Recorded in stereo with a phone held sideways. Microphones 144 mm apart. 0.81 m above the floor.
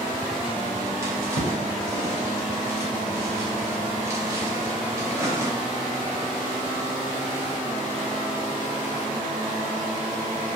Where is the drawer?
20° right (ahead or behind), 0.9 m.